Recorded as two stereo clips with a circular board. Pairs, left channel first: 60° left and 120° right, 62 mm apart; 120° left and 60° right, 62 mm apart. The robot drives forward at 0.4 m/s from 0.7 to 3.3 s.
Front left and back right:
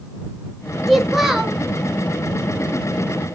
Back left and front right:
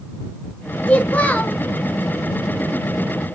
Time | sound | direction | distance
0.9 | a child speaking | 150° left | 0.6 m